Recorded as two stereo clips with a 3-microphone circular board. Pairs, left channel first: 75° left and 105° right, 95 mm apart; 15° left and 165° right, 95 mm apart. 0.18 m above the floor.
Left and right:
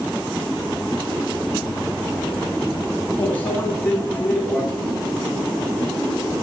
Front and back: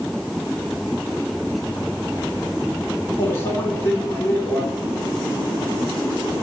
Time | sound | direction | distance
3.2 | a microwave | 25° left | 1.3 m